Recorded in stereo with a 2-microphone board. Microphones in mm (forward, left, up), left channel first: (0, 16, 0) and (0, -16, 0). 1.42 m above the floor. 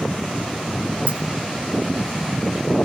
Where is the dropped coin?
45° right (ahead or behind), 5.5 m.